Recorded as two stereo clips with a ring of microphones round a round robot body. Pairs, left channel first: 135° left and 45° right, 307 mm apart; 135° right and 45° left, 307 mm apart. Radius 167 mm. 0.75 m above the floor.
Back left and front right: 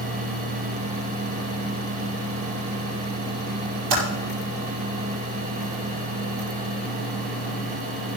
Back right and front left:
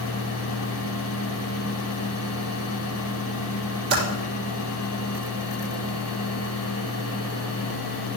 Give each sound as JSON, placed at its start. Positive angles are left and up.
{"t": 3.9, "sound": "typing on a keyboard", "azimuth_deg": -15, "distance_m": 5.5}